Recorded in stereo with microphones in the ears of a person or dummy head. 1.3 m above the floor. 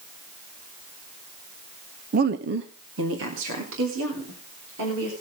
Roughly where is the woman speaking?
Right.